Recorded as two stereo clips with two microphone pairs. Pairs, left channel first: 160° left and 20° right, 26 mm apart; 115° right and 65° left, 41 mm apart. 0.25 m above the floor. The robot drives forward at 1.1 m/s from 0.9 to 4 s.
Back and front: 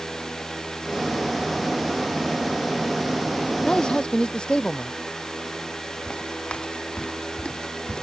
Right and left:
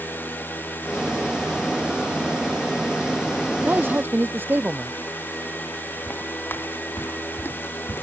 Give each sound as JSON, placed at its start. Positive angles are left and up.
{"t": 3.6, "sound": "a man speaking", "azimuth_deg": 100}
{"t": 6.1, "sound": "footsteps", "azimuth_deg": -160}